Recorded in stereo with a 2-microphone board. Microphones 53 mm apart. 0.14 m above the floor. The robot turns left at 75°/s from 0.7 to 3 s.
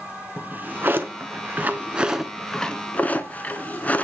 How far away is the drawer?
About 1.0 m.